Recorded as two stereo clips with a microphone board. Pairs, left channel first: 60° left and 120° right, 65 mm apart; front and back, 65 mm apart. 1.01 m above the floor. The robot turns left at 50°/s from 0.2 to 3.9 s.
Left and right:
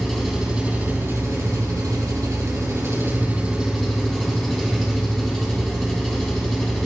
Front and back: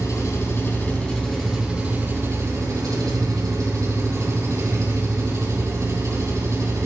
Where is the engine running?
25° right, 3.5 m; by 6.9 s 150° left, 3.5 m.